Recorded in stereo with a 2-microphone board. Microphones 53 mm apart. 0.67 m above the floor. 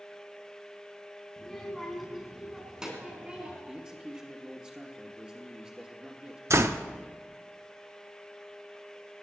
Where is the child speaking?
10° left (ahead or behind), 3 m; by 3.6 s 20° right (ahead or behind), 4 m.